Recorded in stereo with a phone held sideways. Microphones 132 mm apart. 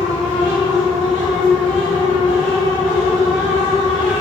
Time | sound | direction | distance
0.0 | a fan | 5° left (ahead or behind) | 1.5 m